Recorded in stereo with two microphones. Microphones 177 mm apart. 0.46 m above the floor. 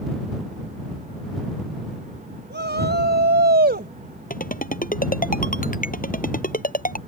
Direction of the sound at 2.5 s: 75° right (ahead or behind).